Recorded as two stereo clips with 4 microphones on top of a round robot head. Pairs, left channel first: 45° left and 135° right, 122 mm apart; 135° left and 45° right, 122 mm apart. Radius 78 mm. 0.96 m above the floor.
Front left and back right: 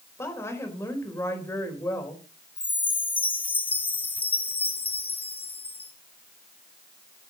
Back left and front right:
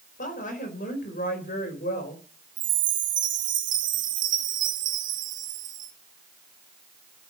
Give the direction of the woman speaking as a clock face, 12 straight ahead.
8 o'clock.